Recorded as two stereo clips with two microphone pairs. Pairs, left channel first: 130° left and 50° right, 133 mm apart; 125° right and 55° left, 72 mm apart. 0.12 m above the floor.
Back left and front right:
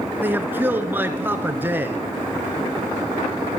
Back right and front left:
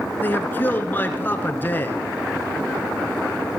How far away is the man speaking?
About 1.3 m.